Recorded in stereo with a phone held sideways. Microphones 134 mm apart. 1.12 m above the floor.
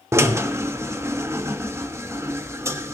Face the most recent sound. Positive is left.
turn(degrees=-20)  # may be behind; listen again after turning